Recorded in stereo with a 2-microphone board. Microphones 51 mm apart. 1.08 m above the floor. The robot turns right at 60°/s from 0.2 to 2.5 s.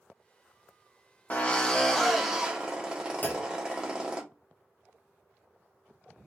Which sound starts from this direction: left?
A clunk, at 3.2 s.